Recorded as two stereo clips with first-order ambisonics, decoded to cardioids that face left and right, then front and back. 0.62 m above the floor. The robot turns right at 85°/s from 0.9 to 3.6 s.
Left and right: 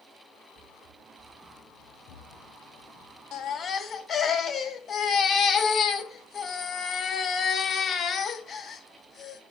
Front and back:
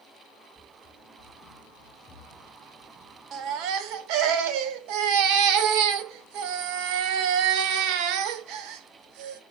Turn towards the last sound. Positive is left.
turn(degrees=155)